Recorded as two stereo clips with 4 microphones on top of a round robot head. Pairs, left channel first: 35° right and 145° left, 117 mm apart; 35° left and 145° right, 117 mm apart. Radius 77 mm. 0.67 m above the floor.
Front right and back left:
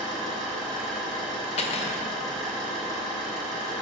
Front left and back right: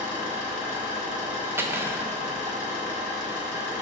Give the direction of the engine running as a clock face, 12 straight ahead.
10 o'clock.